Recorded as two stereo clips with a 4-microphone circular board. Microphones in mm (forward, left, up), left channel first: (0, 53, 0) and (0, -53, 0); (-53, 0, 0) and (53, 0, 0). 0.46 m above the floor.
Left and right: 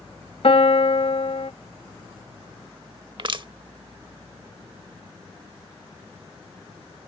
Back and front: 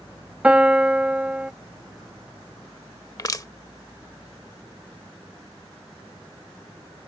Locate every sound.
0.4 s a piano: 80° left
3.2 s crushing: 125° right